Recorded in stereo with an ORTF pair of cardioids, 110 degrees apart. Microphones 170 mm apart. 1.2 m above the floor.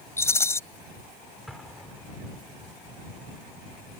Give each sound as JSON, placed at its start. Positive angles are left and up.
{"t": 0.2, "sound": "a rattle", "azimuth_deg": 15}
{"t": 1.5, "sound": "an explosion", "azimuth_deg": 0}